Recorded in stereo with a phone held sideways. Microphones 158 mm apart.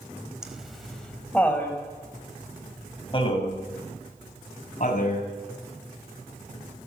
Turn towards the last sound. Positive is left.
turn(degrees=50)  # may be behind; listen again after turning